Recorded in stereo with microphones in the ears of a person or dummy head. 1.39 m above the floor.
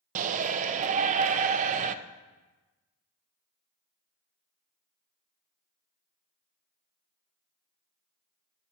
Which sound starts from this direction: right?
A shout, at 0.1 s.